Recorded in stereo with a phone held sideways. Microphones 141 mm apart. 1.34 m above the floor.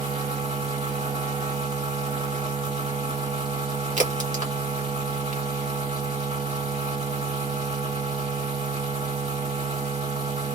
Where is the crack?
65° right (ahead or behind), 1.4 m.